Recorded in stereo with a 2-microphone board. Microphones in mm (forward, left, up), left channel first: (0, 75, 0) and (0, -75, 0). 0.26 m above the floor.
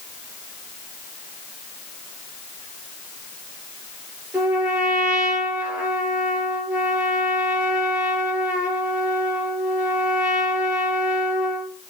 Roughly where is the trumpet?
Centre.